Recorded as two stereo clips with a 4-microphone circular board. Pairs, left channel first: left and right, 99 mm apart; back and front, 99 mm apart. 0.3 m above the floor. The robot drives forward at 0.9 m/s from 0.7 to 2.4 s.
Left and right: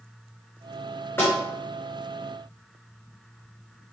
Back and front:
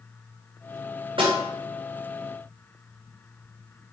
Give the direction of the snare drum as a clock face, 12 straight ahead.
11 o'clock.